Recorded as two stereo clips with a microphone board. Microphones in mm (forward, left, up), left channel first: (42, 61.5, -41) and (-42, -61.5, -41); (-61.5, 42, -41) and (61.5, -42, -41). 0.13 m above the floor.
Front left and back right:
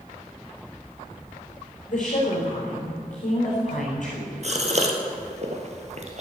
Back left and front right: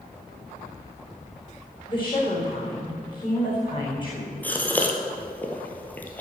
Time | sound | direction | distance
1.9 | a woman speaking | 90° left | 5 m
4.4 | a gasp | 140° right | 1.7 m